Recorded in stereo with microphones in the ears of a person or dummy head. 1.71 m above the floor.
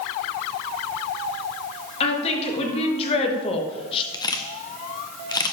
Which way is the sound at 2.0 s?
35° left (ahead or behind).